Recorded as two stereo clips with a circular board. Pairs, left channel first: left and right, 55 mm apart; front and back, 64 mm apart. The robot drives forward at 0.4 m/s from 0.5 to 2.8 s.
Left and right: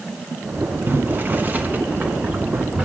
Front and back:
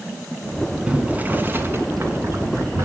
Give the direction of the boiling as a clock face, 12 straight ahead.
4 o'clock.